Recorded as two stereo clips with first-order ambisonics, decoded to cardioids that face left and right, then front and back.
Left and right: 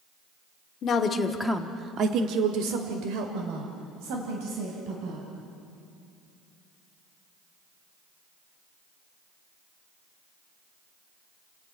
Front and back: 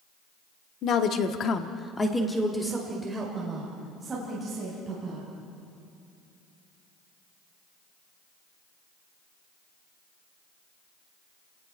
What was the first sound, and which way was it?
A woman speaking, 45° left.